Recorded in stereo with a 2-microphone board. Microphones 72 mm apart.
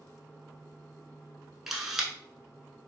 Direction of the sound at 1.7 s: 5° right (ahead or behind).